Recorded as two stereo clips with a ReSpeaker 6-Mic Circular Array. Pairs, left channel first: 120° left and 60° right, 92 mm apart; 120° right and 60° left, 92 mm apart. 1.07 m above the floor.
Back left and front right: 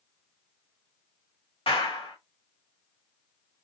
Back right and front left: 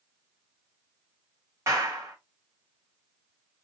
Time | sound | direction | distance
1.7 | a clap | 120° left | 1.4 m